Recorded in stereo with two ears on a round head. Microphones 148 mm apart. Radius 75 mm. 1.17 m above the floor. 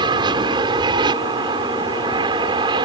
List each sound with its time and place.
0.0 s an aircraft: 25° right (ahead or behind)